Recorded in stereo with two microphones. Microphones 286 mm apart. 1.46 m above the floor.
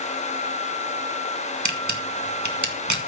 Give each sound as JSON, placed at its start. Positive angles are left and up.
{"t": 1.6, "sound": "a camera shutter", "side_deg": -80, "distance_m": 1.9}